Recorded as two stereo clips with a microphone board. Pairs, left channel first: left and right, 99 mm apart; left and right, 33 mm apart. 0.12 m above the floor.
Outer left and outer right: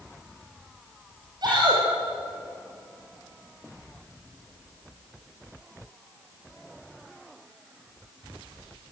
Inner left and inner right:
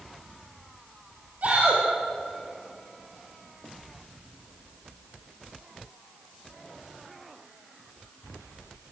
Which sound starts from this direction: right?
A shout, at 1.4 s.